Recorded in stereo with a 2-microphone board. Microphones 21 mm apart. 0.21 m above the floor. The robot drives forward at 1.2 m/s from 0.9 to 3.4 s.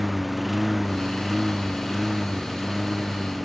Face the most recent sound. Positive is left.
turn(degrees=-5)  # may be behind; listen again after turning